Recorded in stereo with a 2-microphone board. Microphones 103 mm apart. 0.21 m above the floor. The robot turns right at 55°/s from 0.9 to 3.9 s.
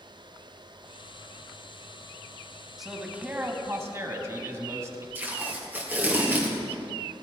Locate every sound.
2.8 s a man speaking: 175° right, 1.5 m; by 5.0 s 115° right, 1.5 m
5.2 s tape being pulled: 20° right (ahead or behind), 2.5 m